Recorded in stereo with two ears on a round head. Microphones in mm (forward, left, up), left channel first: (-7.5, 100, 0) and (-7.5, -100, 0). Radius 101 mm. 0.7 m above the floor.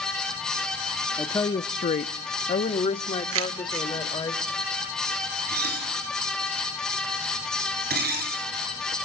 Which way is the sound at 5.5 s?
45° right (ahead or behind).